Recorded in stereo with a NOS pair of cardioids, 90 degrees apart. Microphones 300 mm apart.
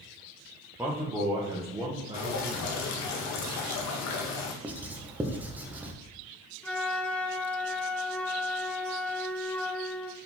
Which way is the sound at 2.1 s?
70° left.